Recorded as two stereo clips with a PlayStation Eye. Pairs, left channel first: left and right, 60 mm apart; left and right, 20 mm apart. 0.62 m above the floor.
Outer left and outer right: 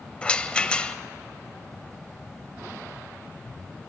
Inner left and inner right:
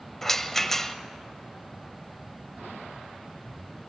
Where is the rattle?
20° left (ahead or behind), 0.8 m.